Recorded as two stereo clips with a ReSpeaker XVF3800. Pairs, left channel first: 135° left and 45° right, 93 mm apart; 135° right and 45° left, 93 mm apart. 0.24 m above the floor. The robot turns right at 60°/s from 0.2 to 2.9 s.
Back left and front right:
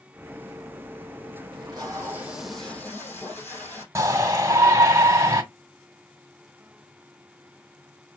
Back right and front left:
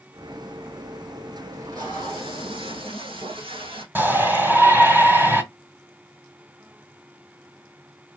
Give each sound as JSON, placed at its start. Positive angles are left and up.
{"t": 1.5, "sound": "tape being pulled", "azimuth_deg": -15, "distance_m": 3.5}
{"t": 4.0, "sound": "a shout", "azimuth_deg": -10, "distance_m": 1.7}